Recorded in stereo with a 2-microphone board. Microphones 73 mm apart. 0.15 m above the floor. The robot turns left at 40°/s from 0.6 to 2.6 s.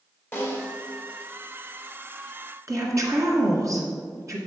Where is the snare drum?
35° left (ahead or behind), 2 m.